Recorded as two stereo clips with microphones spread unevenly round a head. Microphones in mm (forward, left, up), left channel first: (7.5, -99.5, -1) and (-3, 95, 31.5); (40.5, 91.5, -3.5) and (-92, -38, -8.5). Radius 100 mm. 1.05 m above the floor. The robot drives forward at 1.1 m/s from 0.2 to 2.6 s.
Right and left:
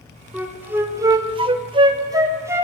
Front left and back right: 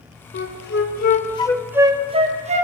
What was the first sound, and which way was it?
A flute, 5° left.